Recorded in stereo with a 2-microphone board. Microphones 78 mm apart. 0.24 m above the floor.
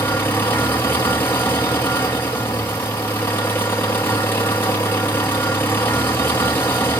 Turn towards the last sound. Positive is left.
turn(degrees=25)  # may be behind; listen again after turning